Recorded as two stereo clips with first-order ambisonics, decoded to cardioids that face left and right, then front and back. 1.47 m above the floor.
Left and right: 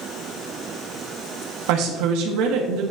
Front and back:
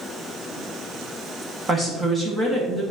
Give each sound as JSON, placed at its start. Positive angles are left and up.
{"t": 1.7, "sound": "a woman speaking", "azimuth_deg": -100, "distance_m": 1.5}